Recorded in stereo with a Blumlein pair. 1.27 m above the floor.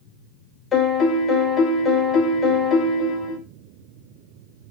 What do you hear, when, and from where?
0.7 s a piano: 20° left, 0.7 m